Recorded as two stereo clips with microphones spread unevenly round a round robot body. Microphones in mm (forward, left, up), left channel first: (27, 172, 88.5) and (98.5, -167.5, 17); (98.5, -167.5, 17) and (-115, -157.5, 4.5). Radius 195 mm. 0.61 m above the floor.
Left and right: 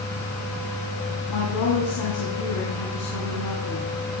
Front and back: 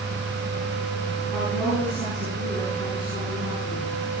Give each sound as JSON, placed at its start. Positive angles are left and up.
{"t": 1.3, "sound": "a woman speaking", "azimuth_deg": 85, "distance_m": 8.0}